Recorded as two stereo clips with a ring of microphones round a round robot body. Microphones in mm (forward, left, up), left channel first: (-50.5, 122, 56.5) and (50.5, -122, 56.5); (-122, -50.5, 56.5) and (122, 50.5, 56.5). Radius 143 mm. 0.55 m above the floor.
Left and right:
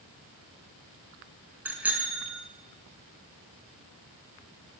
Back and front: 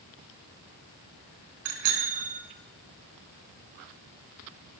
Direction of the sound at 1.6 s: 15° left.